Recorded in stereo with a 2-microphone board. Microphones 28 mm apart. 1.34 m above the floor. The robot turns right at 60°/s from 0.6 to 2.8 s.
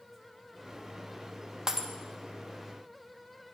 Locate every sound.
1.7 s breaking glass: 25° right (ahead or behind), 0.7 m; by 1.9 s 15° right (ahead or behind), 0.7 m